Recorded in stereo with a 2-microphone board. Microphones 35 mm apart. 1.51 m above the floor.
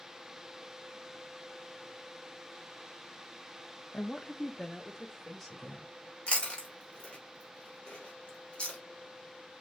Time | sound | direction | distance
3.9 | a woman speaking | 35° left (ahead or behind) | 0.6 m
6.3 | chewing | 35° left (ahead or behind) | 1.7 m